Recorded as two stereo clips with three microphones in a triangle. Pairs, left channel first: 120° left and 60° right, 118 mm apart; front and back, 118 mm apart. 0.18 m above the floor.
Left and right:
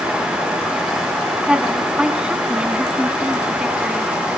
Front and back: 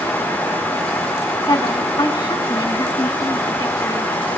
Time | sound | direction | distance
1.5 | a woman speaking | 15° left | 1.3 m